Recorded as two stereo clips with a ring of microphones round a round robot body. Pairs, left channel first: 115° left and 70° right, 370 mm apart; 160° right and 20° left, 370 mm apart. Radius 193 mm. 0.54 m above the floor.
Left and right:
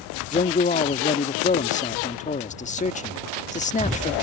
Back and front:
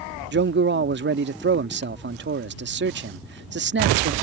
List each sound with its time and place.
0.3 s a man speaking: 55° left